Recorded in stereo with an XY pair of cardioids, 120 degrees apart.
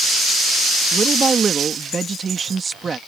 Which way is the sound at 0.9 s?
30° right.